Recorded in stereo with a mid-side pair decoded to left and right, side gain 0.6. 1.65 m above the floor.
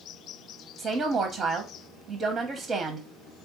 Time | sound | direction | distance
0.8 | a woman speaking | 45° right | 0.9 m